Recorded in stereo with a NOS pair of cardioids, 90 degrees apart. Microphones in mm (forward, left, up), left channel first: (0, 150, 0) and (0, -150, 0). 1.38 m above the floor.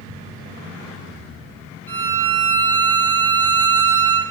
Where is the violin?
5° left, 0.7 m.